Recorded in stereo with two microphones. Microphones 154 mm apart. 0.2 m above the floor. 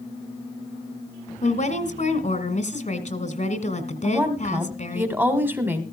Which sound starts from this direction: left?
A woman speaking, at 1.4 s.